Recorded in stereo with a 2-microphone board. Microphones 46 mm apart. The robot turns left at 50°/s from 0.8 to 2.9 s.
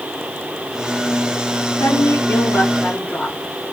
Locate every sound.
1.8 s a woman speaking: 90° left, 2.5 m; by 3.4 s 35° left, 2.5 m